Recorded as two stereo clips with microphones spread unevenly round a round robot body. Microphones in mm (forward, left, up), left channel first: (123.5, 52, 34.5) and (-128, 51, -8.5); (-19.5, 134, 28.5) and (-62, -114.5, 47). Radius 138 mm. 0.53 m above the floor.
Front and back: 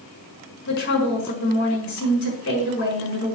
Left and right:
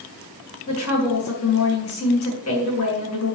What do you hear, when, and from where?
0.7 s a woman speaking: 45° left, 5.5 m